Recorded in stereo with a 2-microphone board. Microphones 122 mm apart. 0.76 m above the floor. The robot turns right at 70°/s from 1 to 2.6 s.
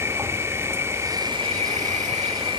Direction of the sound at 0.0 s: 155° right.